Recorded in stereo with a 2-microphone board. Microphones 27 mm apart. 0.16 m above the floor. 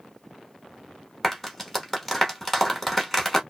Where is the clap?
5° left (ahead or behind), 0.9 m.